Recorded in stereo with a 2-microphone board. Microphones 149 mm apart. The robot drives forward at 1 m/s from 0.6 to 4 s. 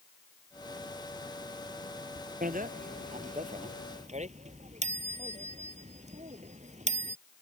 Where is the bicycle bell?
70° right (ahead or behind); by 7.2 s 50° right (ahead or behind).